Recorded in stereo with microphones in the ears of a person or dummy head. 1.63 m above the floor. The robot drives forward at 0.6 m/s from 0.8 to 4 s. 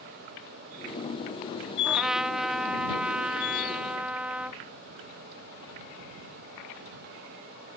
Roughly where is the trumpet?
Centre.